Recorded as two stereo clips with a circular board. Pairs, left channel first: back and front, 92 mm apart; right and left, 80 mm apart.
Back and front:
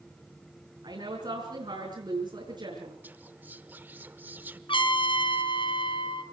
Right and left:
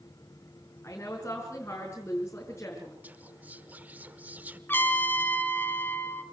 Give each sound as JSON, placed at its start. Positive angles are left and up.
{"t": 0.8, "sound": "a woman speaking", "azimuth_deg": -30, "distance_m": 6.0}
{"t": 3.0, "sound": "whispering", "azimuth_deg": 45, "distance_m": 0.8}
{"t": 4.7, "sound": "a trumpet", "azimuth_deg": -155, "distance_m": 2.0}